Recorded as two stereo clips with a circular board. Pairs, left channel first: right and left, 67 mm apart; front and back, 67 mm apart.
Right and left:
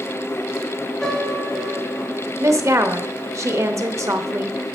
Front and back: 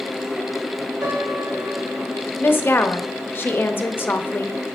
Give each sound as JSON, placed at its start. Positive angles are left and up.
{"t": 1.0, "sound": "a piano", "azimuth_deg": -175, "distance_m": 3.5}
{"t": 2.4, "sound": "a woman speaking", "azimuth_deg": 55, "distance_m": 0.8}